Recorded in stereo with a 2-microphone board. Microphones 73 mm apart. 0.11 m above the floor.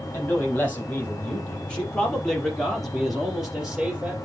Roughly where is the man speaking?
Left.